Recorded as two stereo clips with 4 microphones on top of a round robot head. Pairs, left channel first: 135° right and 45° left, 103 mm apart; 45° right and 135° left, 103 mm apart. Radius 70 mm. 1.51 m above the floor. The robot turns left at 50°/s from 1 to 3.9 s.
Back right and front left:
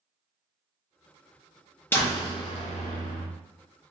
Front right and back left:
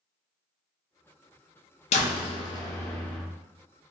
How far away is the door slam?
About 0.5 m.